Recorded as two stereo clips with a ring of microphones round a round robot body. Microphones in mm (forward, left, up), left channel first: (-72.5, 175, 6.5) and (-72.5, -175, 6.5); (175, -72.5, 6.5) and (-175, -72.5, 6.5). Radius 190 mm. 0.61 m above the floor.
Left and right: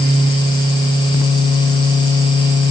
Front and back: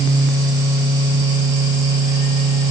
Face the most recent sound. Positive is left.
No sound to turn to.